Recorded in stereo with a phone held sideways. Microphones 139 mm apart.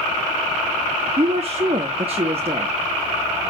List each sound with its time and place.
1.2 s a woman speaking: 45° right (ahead or behind), 1.0 m